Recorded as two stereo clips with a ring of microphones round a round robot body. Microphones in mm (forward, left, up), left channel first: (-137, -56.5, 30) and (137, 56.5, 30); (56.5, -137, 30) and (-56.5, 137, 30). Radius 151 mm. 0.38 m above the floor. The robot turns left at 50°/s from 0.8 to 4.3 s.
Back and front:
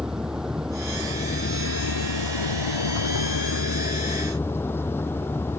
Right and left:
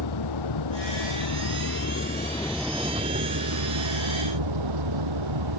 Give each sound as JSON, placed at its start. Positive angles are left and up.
{"t": 0.0, "sound": "a vehicle", "azimuth_deg": -65}